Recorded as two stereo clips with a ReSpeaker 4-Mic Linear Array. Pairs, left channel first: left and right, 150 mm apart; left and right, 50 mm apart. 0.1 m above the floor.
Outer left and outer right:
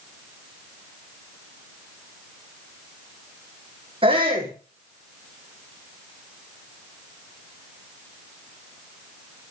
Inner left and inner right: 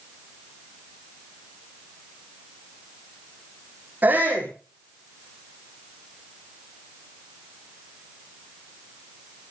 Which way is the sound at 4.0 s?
35° right (ahead or behind).